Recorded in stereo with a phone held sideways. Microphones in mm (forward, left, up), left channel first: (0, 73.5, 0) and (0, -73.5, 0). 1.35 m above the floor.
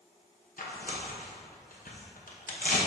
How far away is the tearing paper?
About 0.9 m.